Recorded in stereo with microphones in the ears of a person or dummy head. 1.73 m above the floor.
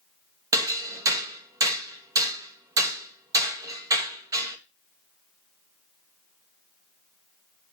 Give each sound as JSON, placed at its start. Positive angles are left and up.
{"t": 0.5, "sound": "hammering", "side_deg": -20, "distance_m": 1.5}